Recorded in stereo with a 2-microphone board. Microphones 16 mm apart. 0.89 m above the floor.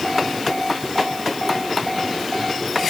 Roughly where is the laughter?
I don't hear laughter.